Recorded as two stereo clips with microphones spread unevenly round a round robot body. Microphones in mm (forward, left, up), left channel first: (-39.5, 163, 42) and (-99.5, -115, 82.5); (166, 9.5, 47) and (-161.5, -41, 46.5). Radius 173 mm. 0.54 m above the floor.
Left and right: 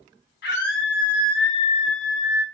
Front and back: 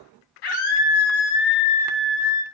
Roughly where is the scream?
Ahead.